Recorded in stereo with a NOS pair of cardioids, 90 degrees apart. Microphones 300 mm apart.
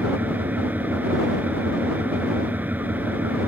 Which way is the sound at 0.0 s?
5° right.